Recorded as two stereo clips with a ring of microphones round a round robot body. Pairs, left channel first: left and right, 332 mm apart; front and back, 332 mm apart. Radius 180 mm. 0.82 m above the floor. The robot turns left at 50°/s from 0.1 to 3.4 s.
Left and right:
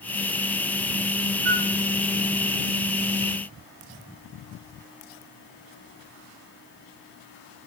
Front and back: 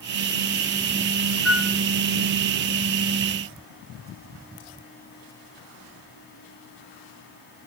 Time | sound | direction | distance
1.4 | a flute | 85° right | 1.0 m